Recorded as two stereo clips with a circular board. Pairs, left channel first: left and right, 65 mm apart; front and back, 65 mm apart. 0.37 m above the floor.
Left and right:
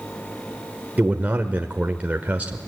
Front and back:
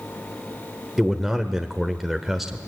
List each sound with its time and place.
1.0 s a man speaking: 95° right, 1.2 m